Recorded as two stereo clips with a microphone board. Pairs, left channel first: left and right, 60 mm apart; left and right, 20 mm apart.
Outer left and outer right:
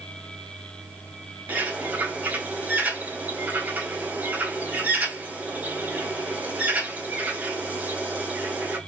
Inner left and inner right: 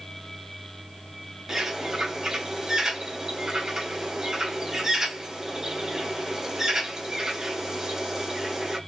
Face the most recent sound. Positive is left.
turn(degrees=-25)  # may be behind; listen again after turning